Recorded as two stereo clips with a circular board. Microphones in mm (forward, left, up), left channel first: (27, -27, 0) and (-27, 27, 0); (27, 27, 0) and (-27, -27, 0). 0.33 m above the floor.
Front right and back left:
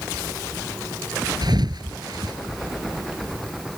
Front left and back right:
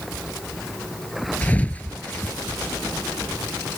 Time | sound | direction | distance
1.4 | a thud | 115° left | ?